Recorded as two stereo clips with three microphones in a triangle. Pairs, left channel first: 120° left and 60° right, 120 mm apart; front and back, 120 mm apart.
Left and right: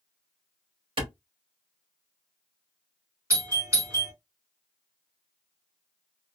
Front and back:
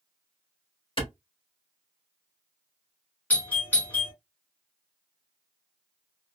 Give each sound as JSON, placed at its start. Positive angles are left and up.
{"t": 1.0, "sound": "a clap", "azimuth_deg": -30, "distance_m": 1.9}
{"t": 3.3, "sound": "a doorbell", "azimuth_deg": -60, "distance_m": 1.7}